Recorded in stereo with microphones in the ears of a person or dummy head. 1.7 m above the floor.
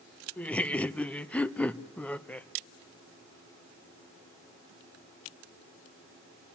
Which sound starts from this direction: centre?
Laughter, at 0.4 s.